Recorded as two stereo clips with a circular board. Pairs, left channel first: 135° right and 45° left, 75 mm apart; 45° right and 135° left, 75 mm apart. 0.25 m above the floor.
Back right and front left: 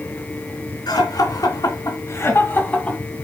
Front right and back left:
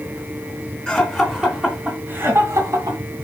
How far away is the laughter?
About 2.5 m.